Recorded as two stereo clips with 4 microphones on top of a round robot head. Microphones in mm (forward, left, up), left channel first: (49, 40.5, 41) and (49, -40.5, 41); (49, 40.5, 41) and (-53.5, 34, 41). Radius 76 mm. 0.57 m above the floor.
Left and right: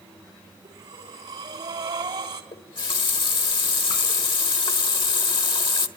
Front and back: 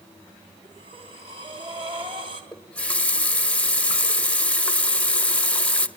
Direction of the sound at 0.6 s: 130° right.